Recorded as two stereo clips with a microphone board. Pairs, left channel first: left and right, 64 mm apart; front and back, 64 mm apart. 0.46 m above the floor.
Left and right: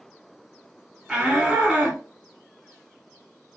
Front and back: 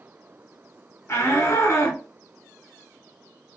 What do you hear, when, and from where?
1.1 s a shout: 20° right, 1.7 m